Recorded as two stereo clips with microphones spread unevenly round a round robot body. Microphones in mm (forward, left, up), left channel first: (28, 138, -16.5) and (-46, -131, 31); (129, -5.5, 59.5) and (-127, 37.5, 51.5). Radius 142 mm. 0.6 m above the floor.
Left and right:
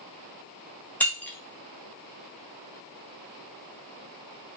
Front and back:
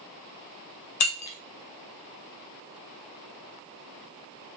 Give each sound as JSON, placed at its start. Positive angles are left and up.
{"t": 1.0, "sound": "breaking glass", "azimuth_deg": -5, "distance_m": 0.7}